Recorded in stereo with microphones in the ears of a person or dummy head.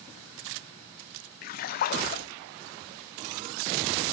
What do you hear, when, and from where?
1.4 s a splash: 45° left (ahead or behind), 0.5 m